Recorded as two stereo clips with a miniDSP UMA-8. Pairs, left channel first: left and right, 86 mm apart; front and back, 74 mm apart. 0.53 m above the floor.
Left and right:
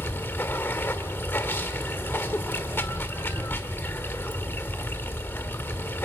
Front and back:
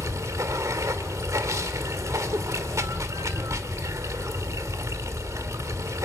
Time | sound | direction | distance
0.0 | running water | 150° left | 1.6 m